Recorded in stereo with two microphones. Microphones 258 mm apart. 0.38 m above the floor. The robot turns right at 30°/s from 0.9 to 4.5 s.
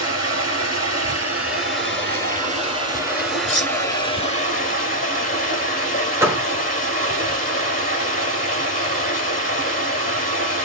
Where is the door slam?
10° right (ahead or behind), 0.8 m.